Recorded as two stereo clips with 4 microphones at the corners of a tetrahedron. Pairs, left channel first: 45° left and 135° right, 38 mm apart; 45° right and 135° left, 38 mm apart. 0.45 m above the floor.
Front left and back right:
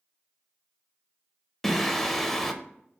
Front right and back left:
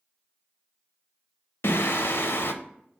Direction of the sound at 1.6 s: 40° right.